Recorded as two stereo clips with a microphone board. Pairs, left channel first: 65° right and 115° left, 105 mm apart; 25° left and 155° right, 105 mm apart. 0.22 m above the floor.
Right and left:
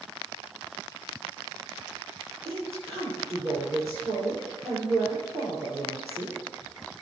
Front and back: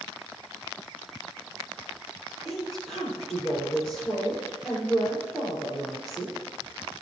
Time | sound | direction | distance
2.5 | a woman speaking | 110° left | 5.5 m